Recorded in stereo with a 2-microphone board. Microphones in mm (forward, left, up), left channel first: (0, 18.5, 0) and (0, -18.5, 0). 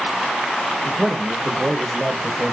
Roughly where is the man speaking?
Centre.